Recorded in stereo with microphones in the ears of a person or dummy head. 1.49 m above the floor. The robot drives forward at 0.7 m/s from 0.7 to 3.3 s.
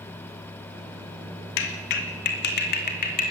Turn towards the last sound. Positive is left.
turn(degrees=45)  # may be behind; listen again after turning